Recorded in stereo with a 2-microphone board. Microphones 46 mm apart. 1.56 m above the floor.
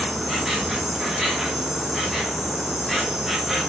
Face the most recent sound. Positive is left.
turn(degrees=-5)  # may be behind; listen again after turning